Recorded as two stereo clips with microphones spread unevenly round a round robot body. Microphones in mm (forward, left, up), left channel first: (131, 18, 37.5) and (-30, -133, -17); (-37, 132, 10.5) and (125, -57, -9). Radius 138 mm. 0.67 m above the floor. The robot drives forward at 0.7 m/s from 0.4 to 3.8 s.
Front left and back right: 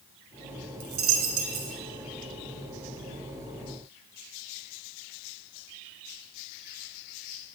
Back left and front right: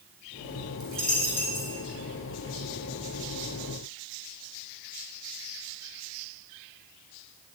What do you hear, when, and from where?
0.8 s a dropped coin: 140° right, 2.5 m; by 1.8 s 150° right, 3 m